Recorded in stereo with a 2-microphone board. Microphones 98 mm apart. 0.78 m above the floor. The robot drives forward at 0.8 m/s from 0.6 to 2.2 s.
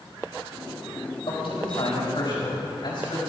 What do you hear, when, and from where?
1.3 s a man speaking: 65° left (ahead or behind), 4 m; by 3.2 s 55° left (ahead or behind), 4.5 m